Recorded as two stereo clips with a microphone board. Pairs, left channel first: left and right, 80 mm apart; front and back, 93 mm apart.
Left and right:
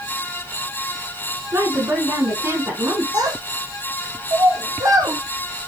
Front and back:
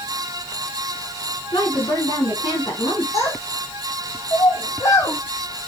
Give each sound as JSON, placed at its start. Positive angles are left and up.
{"t": 1.5, "sound": "a woman speaking", "azimuth_deg": -40, "distance_m": 4.5}
{"t": 3.1, "sound": "a child speaking", "azimuth_deg": -55, "distance_m": 3.0}